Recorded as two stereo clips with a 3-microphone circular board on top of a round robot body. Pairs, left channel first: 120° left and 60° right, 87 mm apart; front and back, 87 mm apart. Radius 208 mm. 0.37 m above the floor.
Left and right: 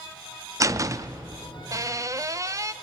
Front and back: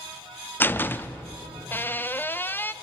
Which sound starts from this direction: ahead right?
A door slam, at 0.6 s.